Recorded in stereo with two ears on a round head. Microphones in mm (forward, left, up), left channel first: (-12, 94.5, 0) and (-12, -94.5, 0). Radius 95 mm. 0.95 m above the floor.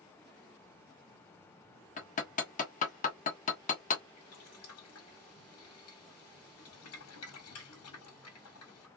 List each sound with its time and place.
2.0 s hammering: 40° left (ahead or behind), 1.4 m
4.2 s boiling: 90° left, 1.9 m